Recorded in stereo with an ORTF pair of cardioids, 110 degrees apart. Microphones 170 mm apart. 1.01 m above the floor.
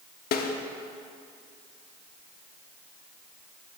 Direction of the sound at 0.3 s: 65° left.